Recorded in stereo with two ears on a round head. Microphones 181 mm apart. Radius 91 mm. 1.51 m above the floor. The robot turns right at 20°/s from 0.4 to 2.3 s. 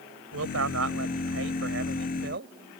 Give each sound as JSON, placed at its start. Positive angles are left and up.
{"t": 0.3, "sound": "a man speaking", "azimuth_deg": -95}